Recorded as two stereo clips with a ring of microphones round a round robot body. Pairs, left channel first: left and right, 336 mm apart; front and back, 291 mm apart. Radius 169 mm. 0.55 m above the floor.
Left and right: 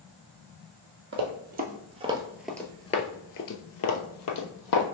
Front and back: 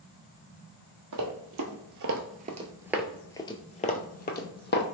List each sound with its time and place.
1.1 s running footsteps: 145° right, 1.0 m; by 4.8 s 50° left, 1.1 m